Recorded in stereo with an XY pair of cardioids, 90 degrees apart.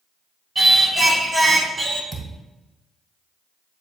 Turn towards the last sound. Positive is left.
turn(degrees=-10)